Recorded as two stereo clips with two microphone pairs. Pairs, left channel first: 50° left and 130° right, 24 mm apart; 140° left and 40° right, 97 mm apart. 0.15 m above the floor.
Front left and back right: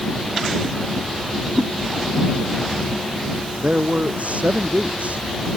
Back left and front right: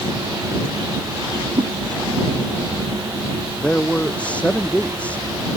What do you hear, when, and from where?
1.6 s a whoosh: 85° right
3.6 s a man speaking: 145° right